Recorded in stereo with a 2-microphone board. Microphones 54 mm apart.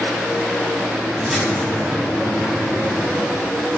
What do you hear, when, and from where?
1.2 s a splash: 5° right (ahead or behind), 2.0 m